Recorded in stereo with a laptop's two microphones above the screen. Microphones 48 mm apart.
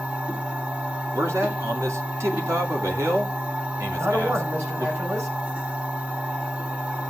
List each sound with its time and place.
0.0 s a machine running: 25° right (ahead or behind), 3.5 m
1.1 s a man speaking: 75° right (ahead or behind), 2.5 m
4.0 s a man speaking: 60° right (ahead or behind), 4.5 m